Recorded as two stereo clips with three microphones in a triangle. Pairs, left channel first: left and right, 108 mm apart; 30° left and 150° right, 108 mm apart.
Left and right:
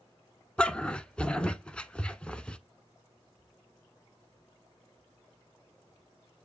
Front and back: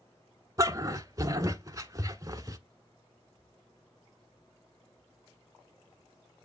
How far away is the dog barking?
About 0.7 m.